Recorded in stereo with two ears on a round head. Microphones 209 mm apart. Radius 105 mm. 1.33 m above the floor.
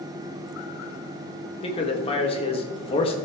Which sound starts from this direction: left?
A man speaking, at 1.6 s.